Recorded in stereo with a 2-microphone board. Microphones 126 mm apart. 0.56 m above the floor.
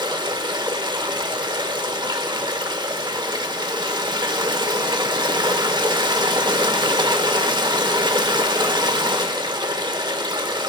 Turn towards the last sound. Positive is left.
turn(degrees=-35)  # may be behind; listen again after turning